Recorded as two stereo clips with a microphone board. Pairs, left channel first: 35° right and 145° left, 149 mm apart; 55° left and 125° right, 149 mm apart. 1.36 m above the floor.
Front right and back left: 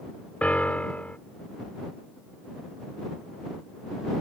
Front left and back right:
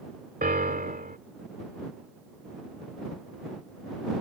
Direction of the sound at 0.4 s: 115° right.